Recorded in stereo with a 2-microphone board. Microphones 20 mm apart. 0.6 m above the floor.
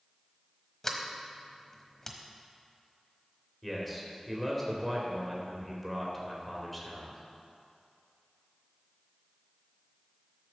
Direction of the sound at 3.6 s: 5° left (ahead or behind).